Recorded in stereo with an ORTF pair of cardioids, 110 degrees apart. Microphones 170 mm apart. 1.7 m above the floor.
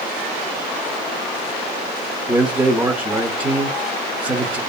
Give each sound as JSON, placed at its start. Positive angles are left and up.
{"t": 2.3, "sound": "a man speaking", "azimuth_deg": -10, "distance_m": 0.9}